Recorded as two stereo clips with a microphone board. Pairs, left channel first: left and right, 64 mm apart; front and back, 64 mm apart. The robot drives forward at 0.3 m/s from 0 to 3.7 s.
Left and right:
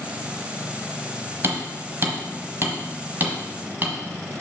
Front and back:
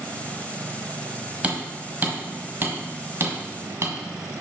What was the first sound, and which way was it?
Hammering, 120° right.